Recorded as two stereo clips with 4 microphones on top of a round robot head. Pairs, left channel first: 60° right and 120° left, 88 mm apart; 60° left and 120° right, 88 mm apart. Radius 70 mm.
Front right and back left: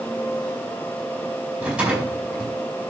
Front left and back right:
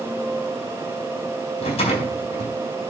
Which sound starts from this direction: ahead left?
A rattle, at 1.6 s.